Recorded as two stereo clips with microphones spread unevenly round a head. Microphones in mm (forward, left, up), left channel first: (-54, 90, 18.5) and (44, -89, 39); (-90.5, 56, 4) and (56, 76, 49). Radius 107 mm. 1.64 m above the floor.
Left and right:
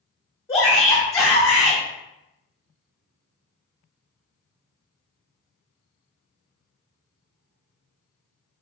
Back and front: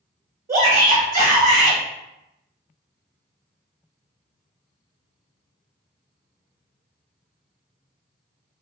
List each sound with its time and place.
0.5 s a shout: 40° left, 1.0 m